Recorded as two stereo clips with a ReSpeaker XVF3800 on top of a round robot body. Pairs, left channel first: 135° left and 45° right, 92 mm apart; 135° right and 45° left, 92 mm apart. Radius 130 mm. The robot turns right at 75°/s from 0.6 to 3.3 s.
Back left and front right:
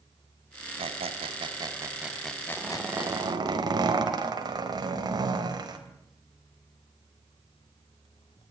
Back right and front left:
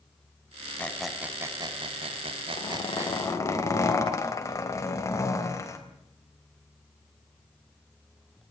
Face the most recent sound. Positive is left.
turn(degrees=-80)